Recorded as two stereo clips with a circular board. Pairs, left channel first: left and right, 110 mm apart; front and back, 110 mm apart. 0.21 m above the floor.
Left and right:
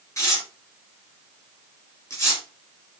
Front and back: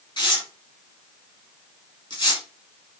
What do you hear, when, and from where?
0.2 s tearing paper: 35° left, 4 m